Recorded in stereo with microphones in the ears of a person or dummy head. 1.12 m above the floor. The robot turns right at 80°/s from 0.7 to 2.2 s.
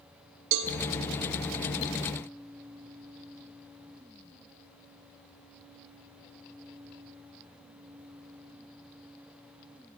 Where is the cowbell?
75° right (ahead or behind), 1.3 m; by 0.7 s 70° right (ahead or behind), 1.3 m.